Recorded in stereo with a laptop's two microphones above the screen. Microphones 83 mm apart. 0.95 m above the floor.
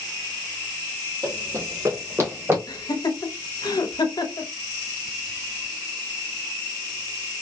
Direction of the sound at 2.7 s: 55° left (ahead or behind).